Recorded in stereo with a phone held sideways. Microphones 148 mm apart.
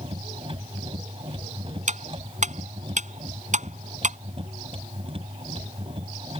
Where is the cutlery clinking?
55° right (ahead or behind).